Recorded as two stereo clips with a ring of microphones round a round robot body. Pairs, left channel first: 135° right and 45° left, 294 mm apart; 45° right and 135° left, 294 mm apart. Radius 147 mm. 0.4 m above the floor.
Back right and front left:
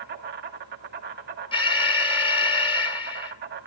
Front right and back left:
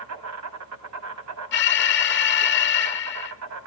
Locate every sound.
0.0 s an insect: 100° left, 1.7 m
1.5 s an alarm: 70° right, 1.6 m